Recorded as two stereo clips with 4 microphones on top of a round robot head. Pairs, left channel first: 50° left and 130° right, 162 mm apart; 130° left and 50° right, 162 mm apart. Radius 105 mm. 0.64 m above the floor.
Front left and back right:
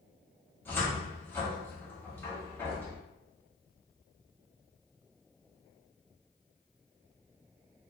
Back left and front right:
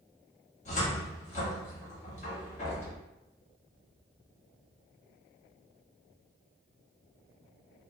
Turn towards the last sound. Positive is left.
turn(degrees=125)